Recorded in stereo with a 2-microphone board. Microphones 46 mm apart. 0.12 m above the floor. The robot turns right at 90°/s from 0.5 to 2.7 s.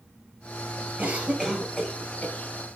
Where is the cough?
45° right (ahead or behind), 2.5 m; by 2.3 s 40° left (ahead or behind), 2.5 m.